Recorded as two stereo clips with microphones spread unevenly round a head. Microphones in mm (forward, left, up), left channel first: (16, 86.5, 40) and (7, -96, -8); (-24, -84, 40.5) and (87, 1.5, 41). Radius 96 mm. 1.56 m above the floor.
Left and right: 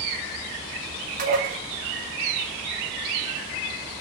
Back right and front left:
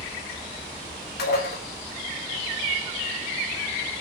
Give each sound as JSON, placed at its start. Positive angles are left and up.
{"t": 1.2, "sound": "dishes clattering", "azimuth_deg": -145, "distance_m": 1.7}